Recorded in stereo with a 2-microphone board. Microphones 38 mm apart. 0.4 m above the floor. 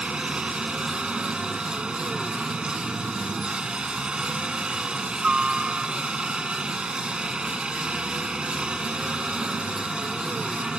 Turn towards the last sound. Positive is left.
turn(degrees=-25)  # may be behind; listen again after turning